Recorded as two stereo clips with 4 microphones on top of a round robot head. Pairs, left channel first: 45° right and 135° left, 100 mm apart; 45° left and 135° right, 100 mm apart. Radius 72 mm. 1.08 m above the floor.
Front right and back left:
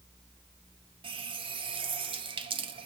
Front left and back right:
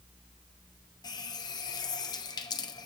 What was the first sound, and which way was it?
A running tap, 100° left.